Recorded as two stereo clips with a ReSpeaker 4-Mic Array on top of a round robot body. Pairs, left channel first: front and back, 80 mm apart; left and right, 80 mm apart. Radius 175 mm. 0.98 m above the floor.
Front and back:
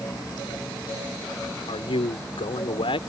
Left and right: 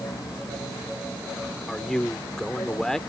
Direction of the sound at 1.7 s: 5° left.